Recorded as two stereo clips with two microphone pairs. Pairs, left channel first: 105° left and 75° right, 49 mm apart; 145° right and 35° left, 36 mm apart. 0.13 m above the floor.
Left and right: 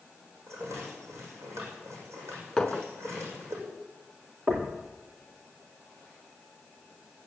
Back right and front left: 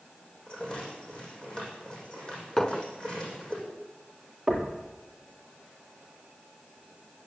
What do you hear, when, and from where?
0.5 s a rattle: 80° right, 7 m
2.6 s a clink: 170° left, 0.9 m
4.5 s knocking: 45° right, 2.5 m